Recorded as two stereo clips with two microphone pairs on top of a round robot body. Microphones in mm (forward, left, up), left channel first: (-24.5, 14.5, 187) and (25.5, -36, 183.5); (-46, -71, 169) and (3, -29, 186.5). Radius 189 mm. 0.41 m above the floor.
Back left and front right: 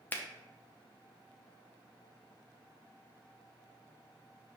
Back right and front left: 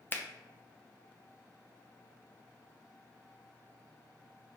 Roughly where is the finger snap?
Behind.